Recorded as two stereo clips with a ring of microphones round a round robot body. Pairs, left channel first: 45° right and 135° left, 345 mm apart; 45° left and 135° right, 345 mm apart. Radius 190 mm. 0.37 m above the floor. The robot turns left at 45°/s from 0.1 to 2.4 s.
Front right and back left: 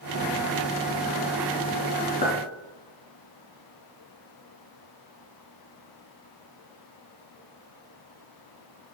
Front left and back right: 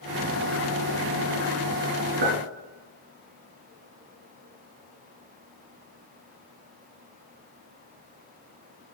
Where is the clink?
120° right, 3.5 m; by 2.4 s 125° right, 3.5 m.